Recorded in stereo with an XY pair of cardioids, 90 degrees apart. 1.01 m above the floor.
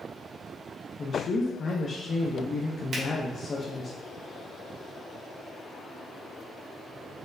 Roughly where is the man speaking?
Ahead left.